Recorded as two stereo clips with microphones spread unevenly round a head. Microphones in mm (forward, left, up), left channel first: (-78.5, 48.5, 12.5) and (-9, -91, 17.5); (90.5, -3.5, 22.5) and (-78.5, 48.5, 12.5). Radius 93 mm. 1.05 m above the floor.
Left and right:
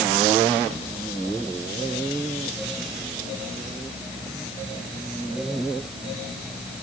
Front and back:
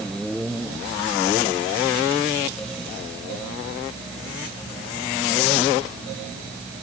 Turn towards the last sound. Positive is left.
No sound to turn to.